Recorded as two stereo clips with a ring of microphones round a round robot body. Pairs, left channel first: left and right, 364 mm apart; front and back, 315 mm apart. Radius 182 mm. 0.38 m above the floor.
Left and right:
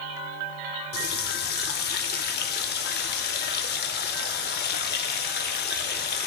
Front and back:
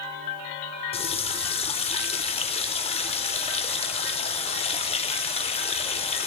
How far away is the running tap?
About 0.5 m.